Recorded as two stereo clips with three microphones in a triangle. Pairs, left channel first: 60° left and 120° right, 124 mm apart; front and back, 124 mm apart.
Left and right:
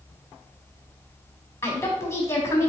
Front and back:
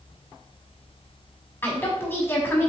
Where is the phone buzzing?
I don't hear a phone buzzing.